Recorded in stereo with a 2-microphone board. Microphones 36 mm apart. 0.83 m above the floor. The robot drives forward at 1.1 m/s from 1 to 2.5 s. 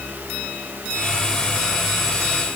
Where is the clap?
No clap in this recording.